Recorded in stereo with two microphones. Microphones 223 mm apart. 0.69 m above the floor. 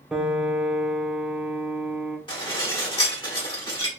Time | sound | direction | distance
0.1 | a piano | 5° right (ahead or behind) | 0.5 m
2.3 | dishes clattering | 20° left (ahead or behind) | 1.3 m